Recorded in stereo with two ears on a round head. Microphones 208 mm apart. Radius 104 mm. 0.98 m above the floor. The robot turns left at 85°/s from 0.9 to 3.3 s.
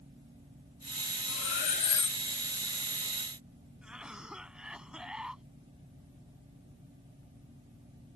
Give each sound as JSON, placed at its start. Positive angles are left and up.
{"t": 1.3, "sound": "cutlery clinking", "azimuth_deg": 75}
{"t": 3.8, "sound": "a cough", "side_deg": -5}